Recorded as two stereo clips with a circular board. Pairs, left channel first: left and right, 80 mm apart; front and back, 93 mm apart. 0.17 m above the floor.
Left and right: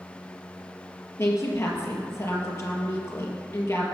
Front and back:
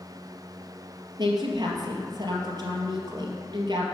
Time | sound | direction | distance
1.2 | a woman speaking | 140° left | 3 m